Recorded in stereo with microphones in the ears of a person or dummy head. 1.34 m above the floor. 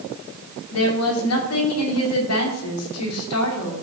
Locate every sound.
0.7 s a woman speaking: 85° left, 3 m